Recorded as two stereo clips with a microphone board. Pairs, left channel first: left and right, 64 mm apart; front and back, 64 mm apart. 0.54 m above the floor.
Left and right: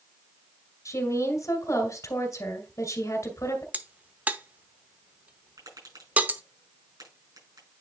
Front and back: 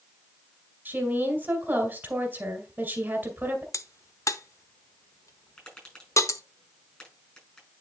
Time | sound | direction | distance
0.8 | a woman speaking | 120° left | 2.5 m
3.7 | a crack | 25° right | 0.7 m
5.6 | tapping | 70° right | 5.5 m